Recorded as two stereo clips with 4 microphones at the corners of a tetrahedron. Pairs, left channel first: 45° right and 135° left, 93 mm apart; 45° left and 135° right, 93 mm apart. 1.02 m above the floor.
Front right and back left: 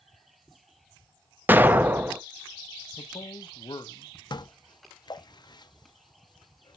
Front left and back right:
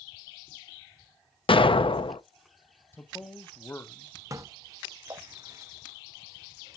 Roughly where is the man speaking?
Ahead.